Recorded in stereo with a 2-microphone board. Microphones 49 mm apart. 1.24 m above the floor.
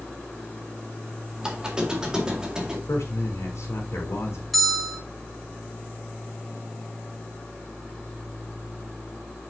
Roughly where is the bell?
Centre.